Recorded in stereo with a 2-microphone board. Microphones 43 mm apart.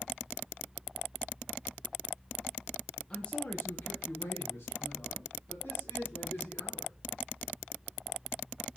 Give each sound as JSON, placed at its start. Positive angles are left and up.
{"t": 3.1, "sound": "a man speaking", "side_deg": 20, "distance_m": 0.9}